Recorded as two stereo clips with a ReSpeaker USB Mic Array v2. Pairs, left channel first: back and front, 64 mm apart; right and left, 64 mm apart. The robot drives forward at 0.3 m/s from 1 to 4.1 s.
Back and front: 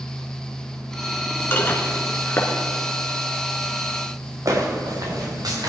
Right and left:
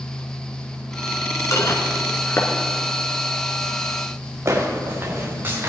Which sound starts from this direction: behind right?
Dishes clattering, at 1.5 s.